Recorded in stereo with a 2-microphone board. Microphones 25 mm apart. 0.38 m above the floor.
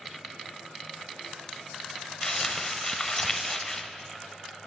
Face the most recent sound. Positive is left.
turn(degrees=20)  # may be behind; listen again after turning